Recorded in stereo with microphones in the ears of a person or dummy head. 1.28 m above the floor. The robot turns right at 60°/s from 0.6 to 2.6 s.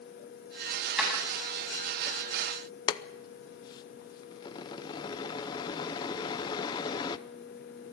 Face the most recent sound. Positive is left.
turn(degrees=20)  # may be behind; listen again after turning